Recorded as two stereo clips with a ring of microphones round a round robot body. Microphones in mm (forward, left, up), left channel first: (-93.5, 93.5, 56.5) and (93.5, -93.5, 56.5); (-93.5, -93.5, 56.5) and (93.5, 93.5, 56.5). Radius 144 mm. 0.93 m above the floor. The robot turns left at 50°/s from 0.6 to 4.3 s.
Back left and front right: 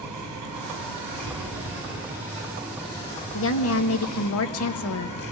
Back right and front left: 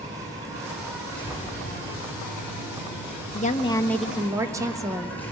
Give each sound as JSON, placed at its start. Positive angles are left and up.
{"t": 0.0, "sound": "an insect", "azimuth_deg": -35, "distance_m": 6.5}
{"t": 1.2, "sound": "an explosion", "azimuth_deg": -65, "distance_m": 2.5}
{"t": 3.3, "sound": "a woman speaking", "azimuth_deg": 170, "distance_m": 1.4}